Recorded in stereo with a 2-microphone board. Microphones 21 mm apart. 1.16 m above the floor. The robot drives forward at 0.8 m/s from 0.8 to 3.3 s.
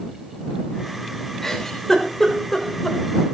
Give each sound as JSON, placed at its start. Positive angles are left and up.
{"t": 1.4, "sound": "a giggle", "side_deg": 15, "distance_m": 4.5}